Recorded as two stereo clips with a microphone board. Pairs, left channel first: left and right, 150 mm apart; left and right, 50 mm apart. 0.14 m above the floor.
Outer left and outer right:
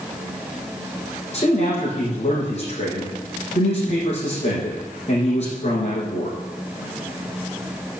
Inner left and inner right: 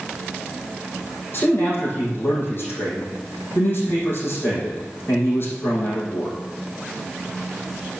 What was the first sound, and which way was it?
A man speaking, 45° left (ahead or behind).